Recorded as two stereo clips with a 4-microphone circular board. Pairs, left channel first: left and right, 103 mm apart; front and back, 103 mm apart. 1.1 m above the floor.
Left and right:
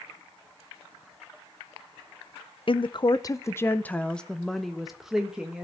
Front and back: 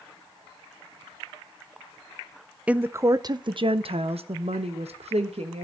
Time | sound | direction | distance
2.7 | a woman speaking | 105° left | 0.6 m